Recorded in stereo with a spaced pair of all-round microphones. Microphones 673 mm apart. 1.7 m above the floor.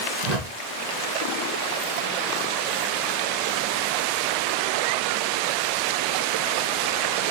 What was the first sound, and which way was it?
A whoosh, 75° right (ahead or behind).